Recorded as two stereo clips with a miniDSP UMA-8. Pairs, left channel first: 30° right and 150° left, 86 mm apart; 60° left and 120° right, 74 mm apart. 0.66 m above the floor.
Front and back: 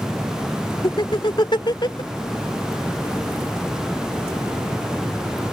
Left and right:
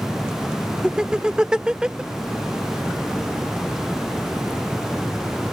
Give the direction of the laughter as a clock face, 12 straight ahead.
1 o'clock.